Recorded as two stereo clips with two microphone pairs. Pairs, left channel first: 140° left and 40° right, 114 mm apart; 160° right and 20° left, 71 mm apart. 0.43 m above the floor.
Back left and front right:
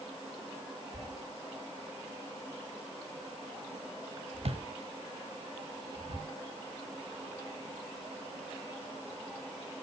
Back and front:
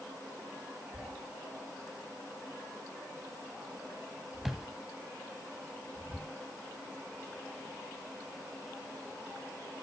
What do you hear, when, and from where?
0.9 s a thud: 65° right, 1.4 m